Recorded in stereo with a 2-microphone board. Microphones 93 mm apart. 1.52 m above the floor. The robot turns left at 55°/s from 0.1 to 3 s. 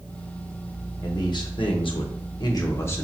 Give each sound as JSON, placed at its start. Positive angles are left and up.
{"t": 1.0, "sound": "a man speaking", "azimuth_deg": 135, "distance_m": 0.9}